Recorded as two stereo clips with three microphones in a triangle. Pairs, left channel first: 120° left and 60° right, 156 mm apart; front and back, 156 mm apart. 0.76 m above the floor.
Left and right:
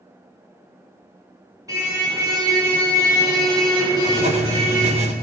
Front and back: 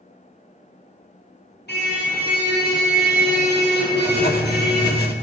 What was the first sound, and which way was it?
A car horn, 10° left.